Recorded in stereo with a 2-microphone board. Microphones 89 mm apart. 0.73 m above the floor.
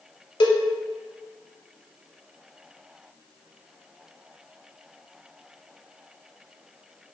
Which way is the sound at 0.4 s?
65° left (ahead or behind).